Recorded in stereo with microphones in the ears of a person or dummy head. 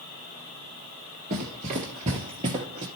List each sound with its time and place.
1.3 s running footsteps: 25° right (ahead or behind), 1.4 m